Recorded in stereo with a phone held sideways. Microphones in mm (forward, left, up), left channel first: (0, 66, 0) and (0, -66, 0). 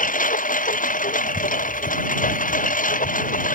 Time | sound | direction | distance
0.0 | a lawn mower | 85° left | ?